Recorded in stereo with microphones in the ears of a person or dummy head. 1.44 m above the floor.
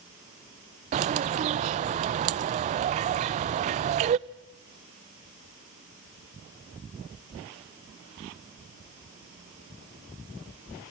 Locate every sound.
0.9 s a bird: 40° right (ahead or behind), 0.7 m